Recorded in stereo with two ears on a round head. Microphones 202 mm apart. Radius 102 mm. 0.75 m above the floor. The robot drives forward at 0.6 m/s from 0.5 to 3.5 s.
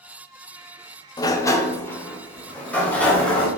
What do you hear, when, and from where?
1.2 s a sliding door: 20° left (ahead or behind), 0.7 m; by 3.5 s 5° left (ahead or behind), 2 m